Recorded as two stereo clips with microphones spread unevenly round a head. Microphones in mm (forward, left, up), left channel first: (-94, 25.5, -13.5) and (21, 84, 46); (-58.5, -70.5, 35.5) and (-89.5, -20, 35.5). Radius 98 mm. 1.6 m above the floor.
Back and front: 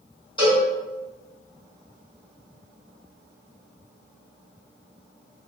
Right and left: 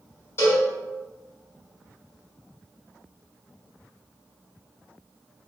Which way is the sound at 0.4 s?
70° right.